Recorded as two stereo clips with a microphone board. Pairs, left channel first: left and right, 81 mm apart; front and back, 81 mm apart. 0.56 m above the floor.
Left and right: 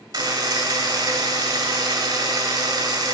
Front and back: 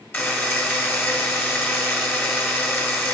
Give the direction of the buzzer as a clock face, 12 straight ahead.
2 o'clock.